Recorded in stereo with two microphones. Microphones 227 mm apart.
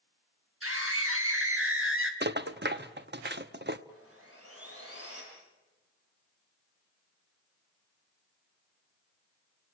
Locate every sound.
0.6 s a scream: 80° right, 4 m; by 2.1 s 65° right (ahead or behind), 3.5 m
2.2 s a rattle: 50° right (ahead or behind), 0.9 m
3.9 s sawing: 80° right, 8 m